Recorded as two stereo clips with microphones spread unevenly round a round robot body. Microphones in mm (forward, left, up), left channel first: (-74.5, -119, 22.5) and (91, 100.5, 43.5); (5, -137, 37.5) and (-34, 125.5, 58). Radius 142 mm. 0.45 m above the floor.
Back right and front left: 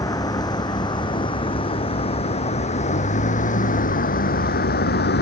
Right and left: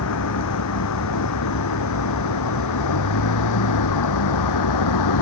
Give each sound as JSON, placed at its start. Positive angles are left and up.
{"t": 0.0, "sound": "a vehicle", "azimuth_deg": -50}